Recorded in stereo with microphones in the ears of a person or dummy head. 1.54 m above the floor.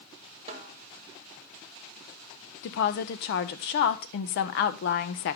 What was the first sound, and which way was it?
A snare drum, 40° right (ahead or behind).